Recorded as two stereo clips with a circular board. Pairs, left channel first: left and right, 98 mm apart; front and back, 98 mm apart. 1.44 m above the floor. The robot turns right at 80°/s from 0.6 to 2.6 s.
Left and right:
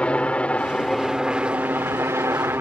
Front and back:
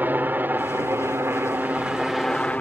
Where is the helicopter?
150° left; by 2.6 s 60° right.